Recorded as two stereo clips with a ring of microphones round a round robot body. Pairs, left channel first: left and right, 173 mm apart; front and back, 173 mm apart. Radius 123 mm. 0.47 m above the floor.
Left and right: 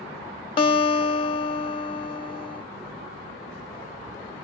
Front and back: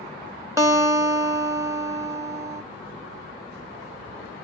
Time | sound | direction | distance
0.6 | a guitar | 125° left | 1.3 m